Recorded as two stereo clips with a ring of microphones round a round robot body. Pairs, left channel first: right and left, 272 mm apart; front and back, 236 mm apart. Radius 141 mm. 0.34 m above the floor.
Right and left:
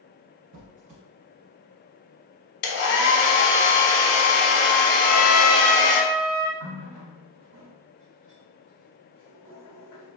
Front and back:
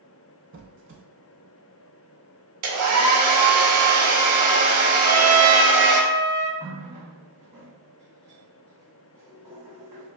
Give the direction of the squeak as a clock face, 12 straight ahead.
7 o'clock.